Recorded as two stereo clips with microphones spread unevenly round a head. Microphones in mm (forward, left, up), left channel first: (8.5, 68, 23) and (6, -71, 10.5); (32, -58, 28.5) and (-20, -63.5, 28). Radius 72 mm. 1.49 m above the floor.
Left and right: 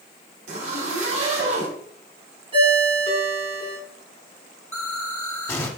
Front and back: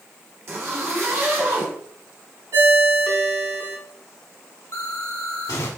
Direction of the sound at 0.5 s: 135° right.